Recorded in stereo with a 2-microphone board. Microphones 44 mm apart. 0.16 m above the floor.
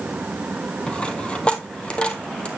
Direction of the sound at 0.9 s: 25° left (ahead or behind).